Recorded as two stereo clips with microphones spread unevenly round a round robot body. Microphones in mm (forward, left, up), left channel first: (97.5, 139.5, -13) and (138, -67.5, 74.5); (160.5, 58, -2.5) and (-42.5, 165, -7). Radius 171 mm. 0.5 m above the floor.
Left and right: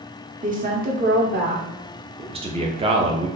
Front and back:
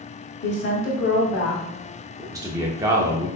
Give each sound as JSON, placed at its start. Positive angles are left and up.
{"t": 0.4, "sound": "a woman speaking", "azimuth_deg": -15, "distance_m": 1.5}
{"t": 2.2, "sound": "a man speaking", "azimuth_deg": -165, "distance_m": 0.6}